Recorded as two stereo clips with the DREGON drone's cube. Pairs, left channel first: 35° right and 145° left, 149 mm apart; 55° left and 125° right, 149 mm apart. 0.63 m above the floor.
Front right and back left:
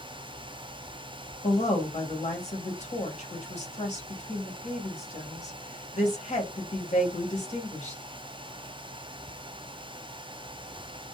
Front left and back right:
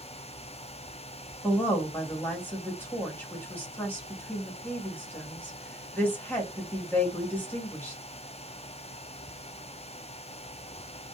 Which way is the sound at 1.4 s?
20° right.